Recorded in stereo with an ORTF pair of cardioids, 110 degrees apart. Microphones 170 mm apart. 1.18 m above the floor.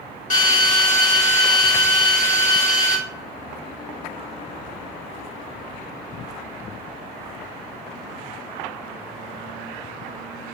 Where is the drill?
50° left, 1.9 m.